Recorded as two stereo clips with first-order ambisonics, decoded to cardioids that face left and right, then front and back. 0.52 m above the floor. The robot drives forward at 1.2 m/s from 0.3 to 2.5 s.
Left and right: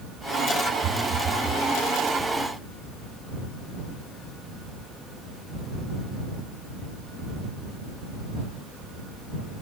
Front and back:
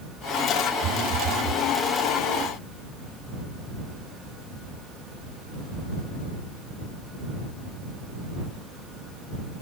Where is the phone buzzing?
145° right, 1.4 m; by 1.6 s 160° right, 2.5 m.